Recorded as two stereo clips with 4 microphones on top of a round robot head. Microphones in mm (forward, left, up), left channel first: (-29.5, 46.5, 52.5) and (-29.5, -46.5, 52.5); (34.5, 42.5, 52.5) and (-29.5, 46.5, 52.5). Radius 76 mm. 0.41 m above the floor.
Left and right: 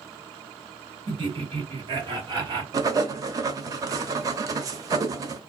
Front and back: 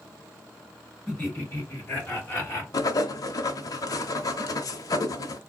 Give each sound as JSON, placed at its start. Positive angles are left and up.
{"t": 1.1, "sound": "laughter", "azimuth_deg": -70, "distance_m": 2.5}
{"t": 2.7, "sound": "writing", "azimuth_deg": -35, "distance_m": 0.7}